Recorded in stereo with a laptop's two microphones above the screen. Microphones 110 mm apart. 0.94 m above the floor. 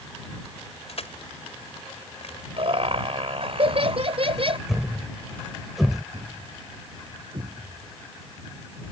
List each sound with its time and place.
0.9 s crushing: 65° left (ahead or behind)
2.6 s laughter: 55° right (ahead or behind)
4.7 s a thud: centre (ahead or behind)
6.1 s a thud: 65° right (ahead or behind)